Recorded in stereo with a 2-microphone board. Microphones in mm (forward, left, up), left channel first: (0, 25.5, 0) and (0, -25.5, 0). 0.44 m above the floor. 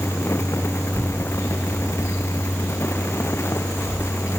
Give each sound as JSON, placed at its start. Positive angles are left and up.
{"t": 0.9, "sound": "a child speaking", "side_deg": 35, "distance_m": 2.5}